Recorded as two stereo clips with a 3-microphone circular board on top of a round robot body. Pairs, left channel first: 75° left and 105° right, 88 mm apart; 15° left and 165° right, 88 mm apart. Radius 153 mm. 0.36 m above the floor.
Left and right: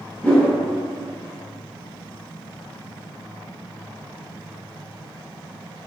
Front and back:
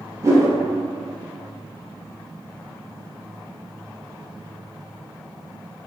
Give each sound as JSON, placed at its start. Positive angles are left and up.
{"t": 0.2, "sound": "a whoosh", "azimuth_deg": 145, "distance_m": 0.8}